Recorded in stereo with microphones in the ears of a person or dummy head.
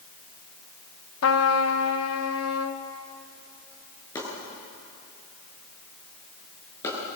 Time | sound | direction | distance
1.2 | a trumpet | 85° left | 1.4 m
4.2 | chopping | 20° left (ahead or behind) | 8.5 m